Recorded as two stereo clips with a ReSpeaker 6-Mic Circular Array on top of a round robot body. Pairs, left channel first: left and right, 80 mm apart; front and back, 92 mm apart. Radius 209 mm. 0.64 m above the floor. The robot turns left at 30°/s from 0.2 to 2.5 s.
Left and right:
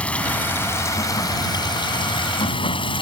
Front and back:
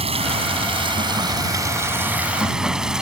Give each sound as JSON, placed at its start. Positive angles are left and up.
{"t": 0.0, "sound": "running water", "azimuth_deg": 165}